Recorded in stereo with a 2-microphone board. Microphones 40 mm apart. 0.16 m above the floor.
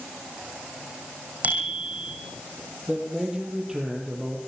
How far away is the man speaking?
About 6 m.